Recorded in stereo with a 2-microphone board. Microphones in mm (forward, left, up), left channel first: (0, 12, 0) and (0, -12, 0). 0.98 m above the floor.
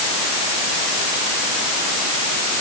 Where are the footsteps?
I don't hear footsteps.